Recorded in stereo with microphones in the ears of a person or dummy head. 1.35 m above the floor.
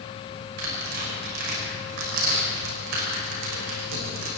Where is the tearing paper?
60° right (ahead or behind), 6.5 m.